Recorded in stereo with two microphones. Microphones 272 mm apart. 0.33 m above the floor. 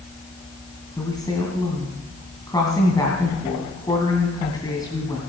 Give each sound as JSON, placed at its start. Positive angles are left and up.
{"t": 1.0, "sound": "a woman speaking", "side_deg": 15, "distance_m": 2.5}